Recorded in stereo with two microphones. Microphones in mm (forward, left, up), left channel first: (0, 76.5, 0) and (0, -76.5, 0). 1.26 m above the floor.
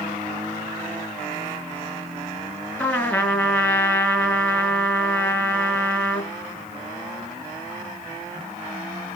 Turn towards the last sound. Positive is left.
turn(degrees=15)  # may be behind; listen again after turning